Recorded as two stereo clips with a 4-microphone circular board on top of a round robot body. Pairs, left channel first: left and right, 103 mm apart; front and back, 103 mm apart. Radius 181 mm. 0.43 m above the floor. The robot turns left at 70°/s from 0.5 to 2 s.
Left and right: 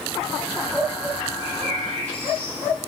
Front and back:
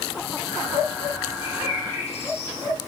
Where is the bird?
20° left, 4.5 m; by 2.6 s 20° right, 4.5 m.